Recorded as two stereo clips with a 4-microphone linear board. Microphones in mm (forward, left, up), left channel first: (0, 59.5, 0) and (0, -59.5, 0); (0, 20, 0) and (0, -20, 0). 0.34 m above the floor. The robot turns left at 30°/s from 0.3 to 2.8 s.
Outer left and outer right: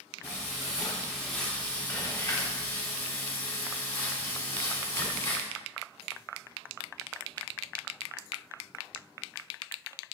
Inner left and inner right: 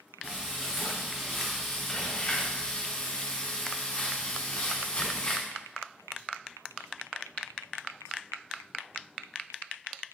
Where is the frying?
150° right, 1.2 m; by 5.5 s 135° left, 1.2 m.